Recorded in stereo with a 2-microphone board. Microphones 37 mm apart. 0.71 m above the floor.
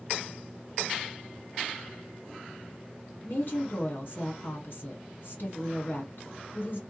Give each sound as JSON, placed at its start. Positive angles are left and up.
{"t": 3.2, "sound": "a woman speaking", "side_deg": 55, "distance_m": 1.8}